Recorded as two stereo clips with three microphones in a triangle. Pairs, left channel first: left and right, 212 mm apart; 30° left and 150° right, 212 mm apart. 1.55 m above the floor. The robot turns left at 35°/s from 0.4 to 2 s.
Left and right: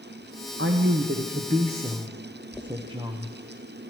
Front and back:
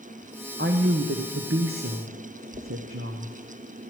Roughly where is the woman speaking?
Right.